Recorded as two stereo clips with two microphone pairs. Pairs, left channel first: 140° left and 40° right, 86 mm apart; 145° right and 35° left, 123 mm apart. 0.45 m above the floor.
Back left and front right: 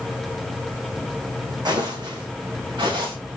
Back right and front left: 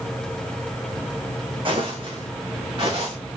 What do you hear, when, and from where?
1.6 s footsteps: 10° right, 2.0 m; by 3.1 s 15° right, 3.5 m